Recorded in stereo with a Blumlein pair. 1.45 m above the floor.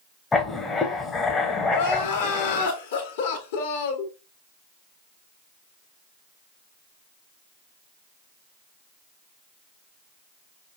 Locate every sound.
0.3 s writing: 15° left, 0.8 m
1.7 s crying: 55° left, 1.1 m